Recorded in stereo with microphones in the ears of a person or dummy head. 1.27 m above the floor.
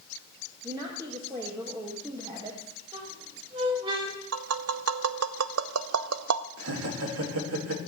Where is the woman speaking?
25° right (ahead or behind), 1.9 m.